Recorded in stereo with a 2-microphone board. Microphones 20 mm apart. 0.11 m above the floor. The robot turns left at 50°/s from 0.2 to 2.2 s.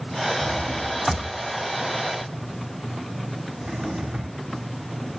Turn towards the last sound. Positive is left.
turn(degrees=-50)  # may be behind; listen again after turning